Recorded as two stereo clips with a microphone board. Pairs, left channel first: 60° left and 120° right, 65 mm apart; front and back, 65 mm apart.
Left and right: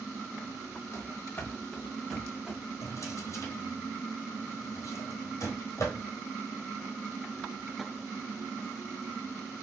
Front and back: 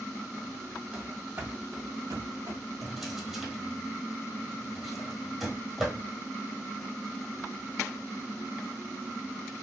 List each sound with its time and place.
0.9 s running footsteps: 105° left, 1.2 m; by 2.6 s 165° left, 1.6 m
2.8 s a drawer: 95° left, 1.3 m